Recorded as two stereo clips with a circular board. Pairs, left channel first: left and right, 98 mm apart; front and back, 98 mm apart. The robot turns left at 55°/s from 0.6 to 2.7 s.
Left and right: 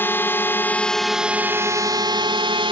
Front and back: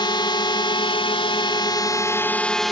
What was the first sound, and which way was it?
A drone, 25° left.